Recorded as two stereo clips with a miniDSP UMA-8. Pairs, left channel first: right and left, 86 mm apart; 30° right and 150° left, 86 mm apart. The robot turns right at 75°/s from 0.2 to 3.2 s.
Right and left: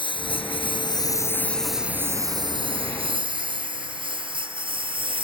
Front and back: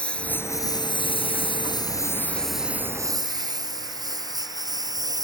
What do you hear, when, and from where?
0.0 s a lawn mower: 110° right; by 5.2 s 105° left